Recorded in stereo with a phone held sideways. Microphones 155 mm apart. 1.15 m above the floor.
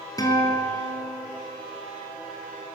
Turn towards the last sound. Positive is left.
turn(degrees=25)  # may be behind; listen again after turning